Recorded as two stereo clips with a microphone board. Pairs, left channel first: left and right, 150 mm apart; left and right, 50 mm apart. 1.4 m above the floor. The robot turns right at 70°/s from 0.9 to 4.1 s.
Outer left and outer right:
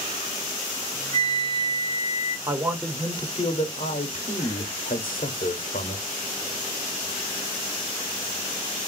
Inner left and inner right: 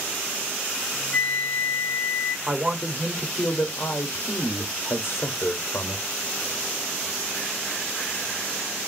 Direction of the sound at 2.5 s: 20° right.